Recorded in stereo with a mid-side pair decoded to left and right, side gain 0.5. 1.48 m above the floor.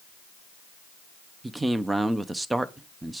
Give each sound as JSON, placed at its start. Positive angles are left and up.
{"t": 1.4, "sound": "a man speaking", "azimuth_deg": -15, "distance_m": 0.8}